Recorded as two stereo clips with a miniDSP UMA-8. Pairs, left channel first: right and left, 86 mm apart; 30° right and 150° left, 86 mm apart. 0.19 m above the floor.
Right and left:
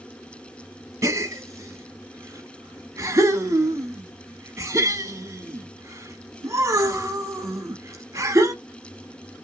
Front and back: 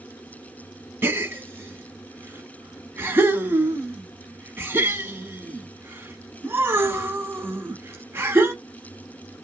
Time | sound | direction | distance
1.0 | a gasp | 110° left | 0.6 m